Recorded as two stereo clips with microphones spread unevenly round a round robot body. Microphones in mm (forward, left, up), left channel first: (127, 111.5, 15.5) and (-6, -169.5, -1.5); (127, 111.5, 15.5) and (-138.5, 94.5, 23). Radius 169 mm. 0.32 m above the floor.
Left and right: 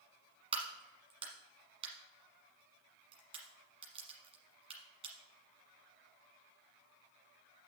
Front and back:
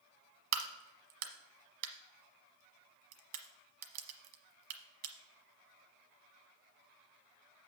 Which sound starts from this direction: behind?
A crack, at 0.5 s.